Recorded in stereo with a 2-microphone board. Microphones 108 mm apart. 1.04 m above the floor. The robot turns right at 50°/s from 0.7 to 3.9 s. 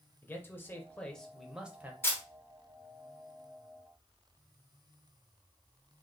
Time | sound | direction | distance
0.2 | a man speaking | 150° left | 0.7 m
2.0 | a camera shutter | 20° left (ahead or behind) | 1.0 m